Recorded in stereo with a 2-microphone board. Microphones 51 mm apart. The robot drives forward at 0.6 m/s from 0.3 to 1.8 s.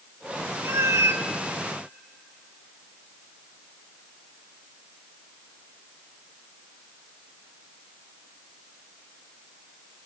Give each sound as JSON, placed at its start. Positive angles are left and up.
{"t": 0.6, "sound": "a cat meowing", "side_deg": -50, "distance_m": 0.6}